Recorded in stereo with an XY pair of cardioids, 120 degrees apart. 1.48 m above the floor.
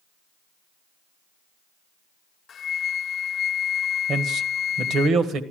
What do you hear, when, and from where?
2.5 s a flute: 45° left, 0.5 m
4.1 s a man speaking: 55° right, 1.7 m